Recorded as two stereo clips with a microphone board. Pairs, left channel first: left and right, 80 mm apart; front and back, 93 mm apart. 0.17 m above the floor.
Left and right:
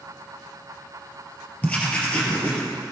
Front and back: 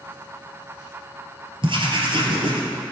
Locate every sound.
1.6 s writing: 160° left, 2 m